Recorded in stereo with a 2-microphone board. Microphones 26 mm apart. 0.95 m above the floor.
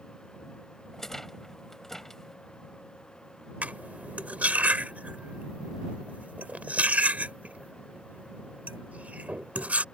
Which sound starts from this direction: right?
Cutlery clinking, at 3.6 s.